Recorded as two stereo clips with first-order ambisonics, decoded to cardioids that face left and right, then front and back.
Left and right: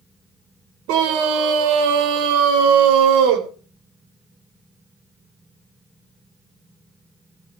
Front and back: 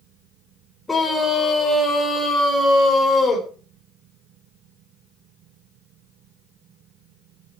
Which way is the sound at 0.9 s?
80° right.